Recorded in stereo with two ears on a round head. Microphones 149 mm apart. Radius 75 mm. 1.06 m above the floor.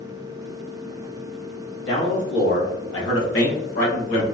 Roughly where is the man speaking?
Left.